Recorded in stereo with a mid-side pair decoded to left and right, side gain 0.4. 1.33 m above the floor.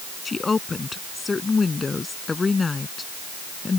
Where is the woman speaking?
35° left.